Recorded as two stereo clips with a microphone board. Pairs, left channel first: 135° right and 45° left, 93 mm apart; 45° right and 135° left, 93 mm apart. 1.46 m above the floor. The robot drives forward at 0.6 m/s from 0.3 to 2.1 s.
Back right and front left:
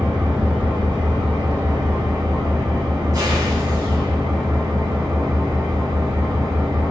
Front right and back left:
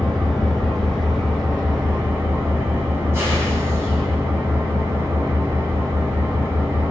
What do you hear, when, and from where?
0.0 s an engine running: 35° left, 1.7 m; by 6.9 s 80° left, 1.2 m